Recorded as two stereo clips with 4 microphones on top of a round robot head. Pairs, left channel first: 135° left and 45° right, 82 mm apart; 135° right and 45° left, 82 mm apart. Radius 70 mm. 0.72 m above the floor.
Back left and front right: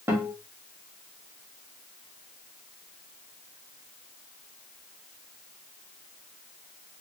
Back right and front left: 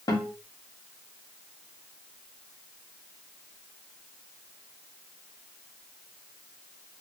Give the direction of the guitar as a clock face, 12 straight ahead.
3 o'clock.